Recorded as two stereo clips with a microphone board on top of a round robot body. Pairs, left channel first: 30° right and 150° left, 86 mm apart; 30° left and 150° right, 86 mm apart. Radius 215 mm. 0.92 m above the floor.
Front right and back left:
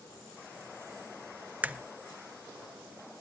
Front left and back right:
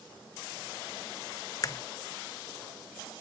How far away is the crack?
About 0.8 m.